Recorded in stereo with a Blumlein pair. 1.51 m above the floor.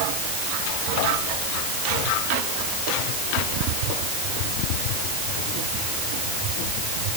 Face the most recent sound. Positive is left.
No sound to turn to.